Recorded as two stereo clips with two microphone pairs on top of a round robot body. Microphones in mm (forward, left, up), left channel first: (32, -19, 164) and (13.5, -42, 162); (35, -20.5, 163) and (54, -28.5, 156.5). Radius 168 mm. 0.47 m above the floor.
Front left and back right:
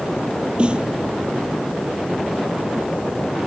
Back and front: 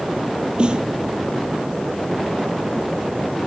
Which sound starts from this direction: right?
A snare drum, at 0.6 s.